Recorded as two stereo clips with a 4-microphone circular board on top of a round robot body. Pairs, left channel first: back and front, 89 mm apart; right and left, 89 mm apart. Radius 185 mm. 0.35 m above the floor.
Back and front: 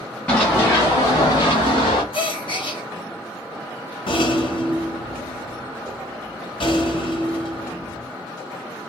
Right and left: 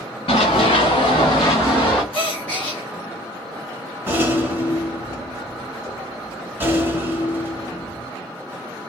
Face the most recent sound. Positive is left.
turn(degrees=155)